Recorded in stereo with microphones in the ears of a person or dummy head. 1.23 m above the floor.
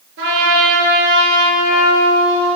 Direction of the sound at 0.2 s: 60° right (ahead or behind).